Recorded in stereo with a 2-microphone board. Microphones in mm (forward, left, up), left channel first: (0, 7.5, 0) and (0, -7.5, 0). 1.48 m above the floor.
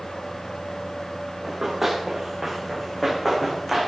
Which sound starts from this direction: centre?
Running footsteps, at 1.4 s.